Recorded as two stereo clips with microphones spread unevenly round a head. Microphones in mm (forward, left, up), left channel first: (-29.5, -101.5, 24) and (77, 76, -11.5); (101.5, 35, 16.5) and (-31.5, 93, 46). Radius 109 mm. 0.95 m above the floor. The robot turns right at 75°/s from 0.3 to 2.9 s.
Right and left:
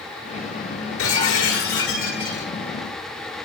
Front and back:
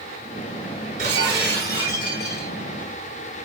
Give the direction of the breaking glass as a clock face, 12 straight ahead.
5 o'clock.